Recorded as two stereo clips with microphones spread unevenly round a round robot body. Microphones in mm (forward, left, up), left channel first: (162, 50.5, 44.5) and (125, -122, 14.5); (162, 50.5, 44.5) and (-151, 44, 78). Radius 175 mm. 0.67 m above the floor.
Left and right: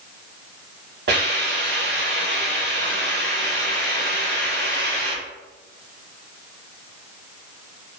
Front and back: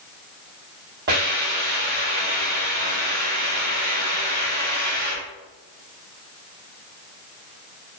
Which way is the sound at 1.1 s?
115° right.